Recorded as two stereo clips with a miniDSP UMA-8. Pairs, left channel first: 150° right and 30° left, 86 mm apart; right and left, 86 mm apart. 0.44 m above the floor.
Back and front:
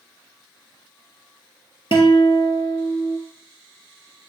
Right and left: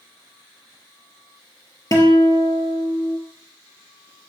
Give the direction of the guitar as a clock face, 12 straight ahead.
5 o'clock.